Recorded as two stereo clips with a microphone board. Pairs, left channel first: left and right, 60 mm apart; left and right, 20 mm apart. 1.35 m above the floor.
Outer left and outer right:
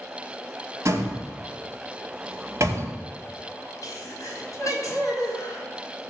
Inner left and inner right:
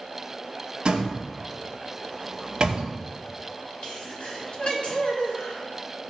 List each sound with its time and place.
0.8 s a door slam: 50° right (ahead or behind), 2.5 m
3.8 s a sneeze: 65° left (ahead or behind), 4.5 m